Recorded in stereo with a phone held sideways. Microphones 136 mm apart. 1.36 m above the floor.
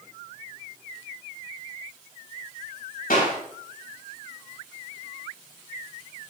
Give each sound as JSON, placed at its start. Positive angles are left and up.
{"t": 3.1, "sound": "a clap", "side_deg": 90, "distance_m": 5.0}